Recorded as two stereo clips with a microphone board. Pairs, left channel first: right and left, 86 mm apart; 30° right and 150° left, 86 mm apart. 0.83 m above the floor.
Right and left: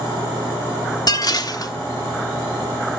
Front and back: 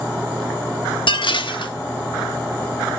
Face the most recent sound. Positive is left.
turn(degrees=-50)